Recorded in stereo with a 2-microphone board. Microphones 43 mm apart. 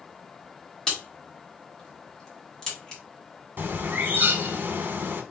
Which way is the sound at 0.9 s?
15° left (ahead or behind).